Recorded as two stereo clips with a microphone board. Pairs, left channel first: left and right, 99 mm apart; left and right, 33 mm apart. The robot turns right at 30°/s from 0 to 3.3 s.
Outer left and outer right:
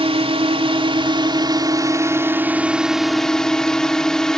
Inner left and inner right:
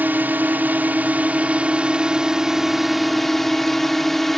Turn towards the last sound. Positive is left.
turn(degrees=5)